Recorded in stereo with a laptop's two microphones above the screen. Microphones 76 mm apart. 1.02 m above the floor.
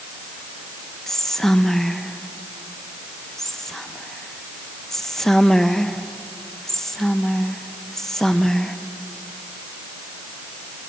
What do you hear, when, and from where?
1.1 s whispering: 5° left (ahead or behind), 0.5 m